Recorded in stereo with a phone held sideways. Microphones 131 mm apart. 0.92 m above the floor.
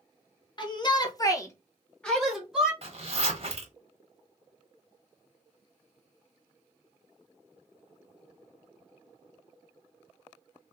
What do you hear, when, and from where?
0.6 s a shout: 35° left (ahead or behind), 0.9 m; by 2.7 s 5° right (ahead or behind), 1.0 m
2.8 s a zipper: 50° right (ahead or behind), 1.1 m